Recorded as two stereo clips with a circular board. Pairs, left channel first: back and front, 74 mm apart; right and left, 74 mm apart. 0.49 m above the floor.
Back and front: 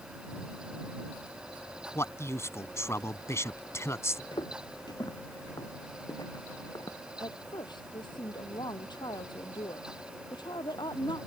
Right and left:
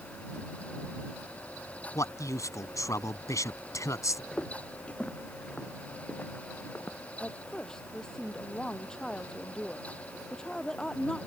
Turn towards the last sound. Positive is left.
turn(degrees=-170)